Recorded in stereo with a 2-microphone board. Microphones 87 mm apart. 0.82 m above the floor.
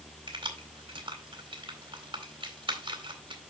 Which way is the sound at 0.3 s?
80° right.